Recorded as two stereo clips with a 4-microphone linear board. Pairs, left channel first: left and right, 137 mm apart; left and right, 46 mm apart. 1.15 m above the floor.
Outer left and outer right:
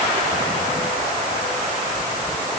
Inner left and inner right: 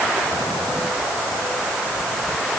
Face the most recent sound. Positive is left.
No sound to turn to.